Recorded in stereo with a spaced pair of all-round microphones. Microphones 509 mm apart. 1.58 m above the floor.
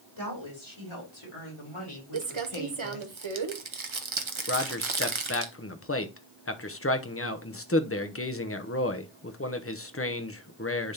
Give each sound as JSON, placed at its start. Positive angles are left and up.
{"t": 0.2, "sound": "a woman speaking", "side_deg": 65, "distance_m": 3.5}
{"t": 2.1, "sound": "crumpling", "side_deg": -65, "distance_m": 0.9}
{"t": 4.5, "sound": "a man speaking", "side_deg": 25, "distance_m": 0.8}